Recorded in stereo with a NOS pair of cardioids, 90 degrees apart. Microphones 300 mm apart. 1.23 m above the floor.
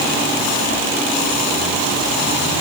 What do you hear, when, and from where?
Only background noise.